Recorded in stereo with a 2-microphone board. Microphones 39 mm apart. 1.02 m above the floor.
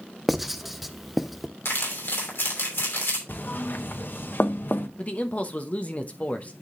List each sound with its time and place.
0.3 s writing: 5° right (ahead or behind), 0.5 m
1.6 s crumpling: 80° left, 2.5 m
3.3 s knocking: 60° left (ahead or behind), 0.7 m
5.0 s a man speaking: 40° left (ahead or behind), 0.9 m